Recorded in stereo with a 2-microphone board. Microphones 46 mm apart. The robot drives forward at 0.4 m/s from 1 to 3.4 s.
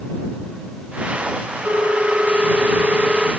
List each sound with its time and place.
1.6 s a ringtone: 45° right (ahead or behind), 1.7 m; by 3.3 s 30° right (ahead or behind), 2 m